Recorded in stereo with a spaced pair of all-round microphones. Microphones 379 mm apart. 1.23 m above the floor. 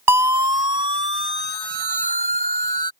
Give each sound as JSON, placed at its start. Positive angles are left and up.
{"t": 0.1, "sound": "a siren", "side_deg": -85}